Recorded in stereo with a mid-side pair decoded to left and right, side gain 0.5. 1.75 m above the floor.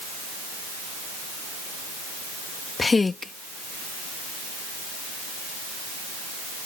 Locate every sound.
2.8 s a woman speaking: 25° left